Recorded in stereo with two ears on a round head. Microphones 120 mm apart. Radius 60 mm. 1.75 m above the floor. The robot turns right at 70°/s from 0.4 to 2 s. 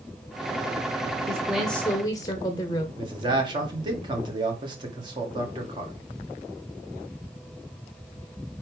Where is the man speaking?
35° right (ahead or behind), 1.8 m.